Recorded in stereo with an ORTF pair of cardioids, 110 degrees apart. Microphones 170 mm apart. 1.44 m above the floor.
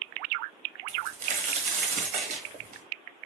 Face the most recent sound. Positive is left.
turn(degrees=-55)